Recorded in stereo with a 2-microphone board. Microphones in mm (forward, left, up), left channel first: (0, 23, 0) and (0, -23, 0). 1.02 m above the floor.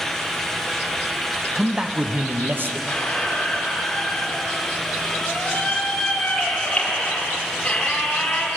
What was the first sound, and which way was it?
A man speaking, 5° right (ahead or behind).